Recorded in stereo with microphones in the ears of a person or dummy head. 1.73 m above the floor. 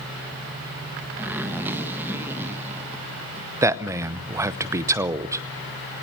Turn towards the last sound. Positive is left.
turn(degrees=-25)  # may be behind; listen again after turning